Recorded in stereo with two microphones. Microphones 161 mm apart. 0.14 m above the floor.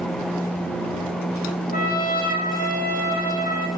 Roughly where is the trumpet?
Left.